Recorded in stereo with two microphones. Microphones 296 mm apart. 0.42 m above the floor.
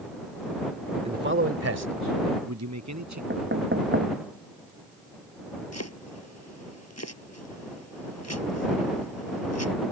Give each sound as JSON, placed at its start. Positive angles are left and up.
{"t": 1.1, "sound": "a man speaking", "side_deg": -20}
{"t": 3.3, "sound": "knocking", "side_deg": -40}
{"t": 5.7, "sound": "chopping", "side_deg": 55}